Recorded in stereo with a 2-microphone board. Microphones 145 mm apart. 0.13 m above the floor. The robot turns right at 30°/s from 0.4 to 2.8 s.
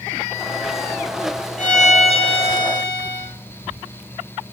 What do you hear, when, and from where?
1.6 s a violin: 115° left, 1.0 m; by 3.3 s 150° left, 1.0 m